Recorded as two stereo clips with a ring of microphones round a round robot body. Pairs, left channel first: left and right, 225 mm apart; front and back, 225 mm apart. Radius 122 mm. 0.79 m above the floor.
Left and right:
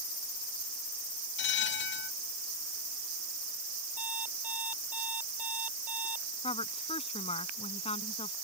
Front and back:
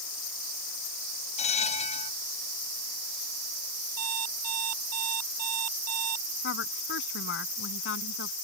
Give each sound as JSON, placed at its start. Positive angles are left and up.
{"t": 1.4, "sound": "a bell", "azimuth_deg": 60}
{"t": 4.0, "sound": "an alarm clock", "azimuth_deg": -175}
{"t": 6.4, "sound": "a woman speaking", "azimuth_deg": 25}